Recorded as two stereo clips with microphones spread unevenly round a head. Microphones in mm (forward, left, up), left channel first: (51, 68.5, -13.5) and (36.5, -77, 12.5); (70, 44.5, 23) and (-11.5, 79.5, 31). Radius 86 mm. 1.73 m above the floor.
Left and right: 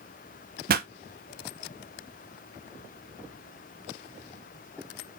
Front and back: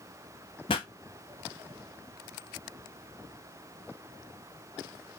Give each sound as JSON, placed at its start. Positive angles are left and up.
{"t": 0.7, "sound": "a pop", "azimuth_deg": -75, "distance_m": 0.6}